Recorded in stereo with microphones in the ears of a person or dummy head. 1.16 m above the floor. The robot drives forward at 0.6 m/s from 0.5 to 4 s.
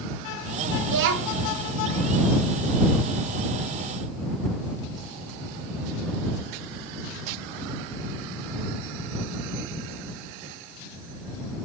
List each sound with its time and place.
0.8 s a child speaking: 65° right (ahead or behind), 1.3 m; by 1.5 s 80° right, 1.1 m